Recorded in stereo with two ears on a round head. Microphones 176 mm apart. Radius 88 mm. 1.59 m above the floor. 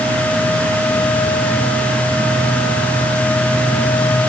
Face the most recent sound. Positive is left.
No sound to turn to.